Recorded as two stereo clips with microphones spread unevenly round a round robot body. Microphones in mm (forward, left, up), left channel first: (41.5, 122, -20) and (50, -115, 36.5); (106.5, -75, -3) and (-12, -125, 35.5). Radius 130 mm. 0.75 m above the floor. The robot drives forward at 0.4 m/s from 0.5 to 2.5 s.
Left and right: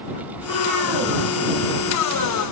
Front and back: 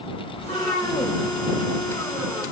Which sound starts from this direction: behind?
A cat meowing, at 0.4 s.